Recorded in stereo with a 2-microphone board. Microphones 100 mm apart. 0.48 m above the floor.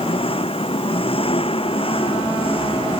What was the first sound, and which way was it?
An engine running, 70° left (ahead or behind).